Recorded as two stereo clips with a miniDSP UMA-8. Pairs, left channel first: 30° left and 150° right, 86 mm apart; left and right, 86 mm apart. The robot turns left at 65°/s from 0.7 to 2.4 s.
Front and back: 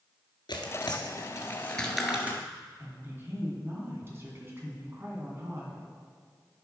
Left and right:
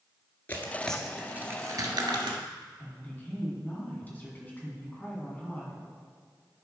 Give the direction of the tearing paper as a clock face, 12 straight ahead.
11 o'clock.